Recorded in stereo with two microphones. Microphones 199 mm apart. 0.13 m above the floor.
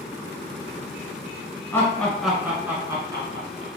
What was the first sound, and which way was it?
Laughter, 10° left (ahead or behind).